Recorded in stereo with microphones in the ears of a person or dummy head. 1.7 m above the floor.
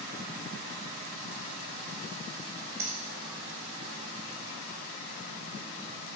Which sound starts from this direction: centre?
A finger snap, at 2.8 s.